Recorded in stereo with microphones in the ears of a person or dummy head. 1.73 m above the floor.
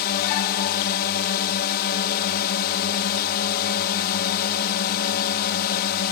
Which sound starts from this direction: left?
A drone, at 0.0 s.